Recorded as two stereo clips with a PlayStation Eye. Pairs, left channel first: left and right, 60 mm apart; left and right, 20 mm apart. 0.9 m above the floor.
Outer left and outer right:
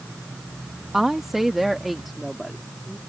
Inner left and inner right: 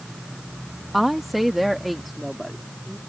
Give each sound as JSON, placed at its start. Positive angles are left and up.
{"t": 0.9, "sound": "a woman speaking", "side_deg": -5}